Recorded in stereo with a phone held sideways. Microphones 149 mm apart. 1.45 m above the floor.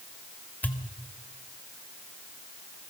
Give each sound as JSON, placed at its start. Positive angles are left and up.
{"t": 0.6, "sound": "a pop", "side_deg": 10, "distance_m": 1.8}